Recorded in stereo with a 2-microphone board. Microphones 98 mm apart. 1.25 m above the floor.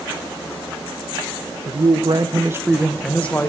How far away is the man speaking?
About 1.3 m.